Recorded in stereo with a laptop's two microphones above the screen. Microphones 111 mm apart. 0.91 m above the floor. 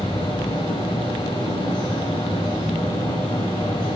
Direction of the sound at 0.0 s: 45° left (ahead or behind).